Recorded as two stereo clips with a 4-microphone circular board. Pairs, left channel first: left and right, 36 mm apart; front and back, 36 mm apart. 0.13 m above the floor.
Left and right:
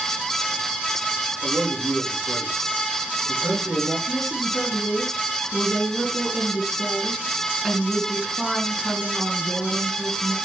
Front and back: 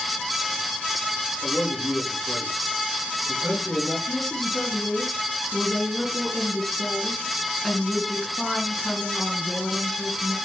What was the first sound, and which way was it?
A man speaking, 80° right.